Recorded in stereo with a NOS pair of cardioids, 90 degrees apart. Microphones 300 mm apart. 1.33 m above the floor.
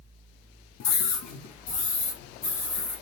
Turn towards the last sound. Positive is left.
turn(degrees=80)